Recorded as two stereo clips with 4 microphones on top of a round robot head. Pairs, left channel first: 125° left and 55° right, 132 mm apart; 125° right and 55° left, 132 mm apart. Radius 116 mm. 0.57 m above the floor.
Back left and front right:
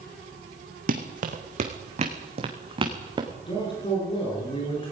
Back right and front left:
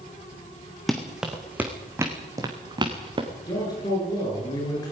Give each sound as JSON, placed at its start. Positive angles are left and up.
{"t": 0.9, "sound": "running footsteps", "azimuth_deg": -35, "distance_m": 2.5}
{"t": 3.4, "sound": "a man speaking", "azimuth_deg": 175, "distance_m": 9.5}